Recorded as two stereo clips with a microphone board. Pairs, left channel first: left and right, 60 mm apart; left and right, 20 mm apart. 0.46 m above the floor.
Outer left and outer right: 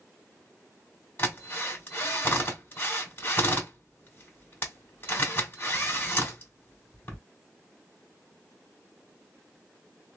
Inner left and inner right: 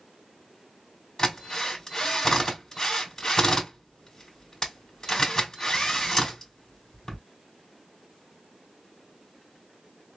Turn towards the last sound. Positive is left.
turn(degrees=35)  # may be behind; listen again after turning